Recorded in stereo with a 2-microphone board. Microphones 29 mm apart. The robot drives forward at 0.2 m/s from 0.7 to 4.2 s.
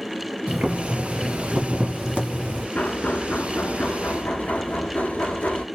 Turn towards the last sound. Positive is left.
turn(degrees=80)